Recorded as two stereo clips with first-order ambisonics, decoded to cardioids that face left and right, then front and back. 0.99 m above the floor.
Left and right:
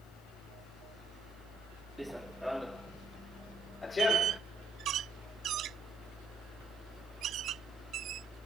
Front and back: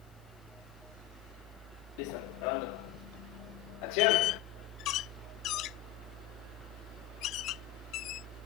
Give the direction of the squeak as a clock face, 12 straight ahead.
1 o'clock.